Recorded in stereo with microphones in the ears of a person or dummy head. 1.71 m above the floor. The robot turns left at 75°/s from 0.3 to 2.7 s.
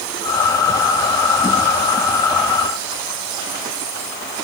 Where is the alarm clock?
I don't hear an alarm clock.